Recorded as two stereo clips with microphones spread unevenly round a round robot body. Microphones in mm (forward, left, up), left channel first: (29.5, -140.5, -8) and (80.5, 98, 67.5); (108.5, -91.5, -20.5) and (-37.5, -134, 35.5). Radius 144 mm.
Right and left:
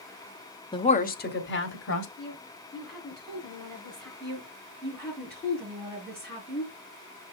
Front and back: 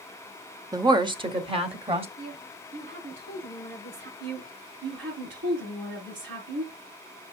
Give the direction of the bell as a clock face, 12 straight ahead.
No bell in this recording.